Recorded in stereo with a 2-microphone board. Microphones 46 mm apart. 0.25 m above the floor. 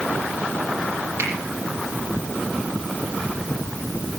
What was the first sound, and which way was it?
A finger snap, 75° right (ahead or behind).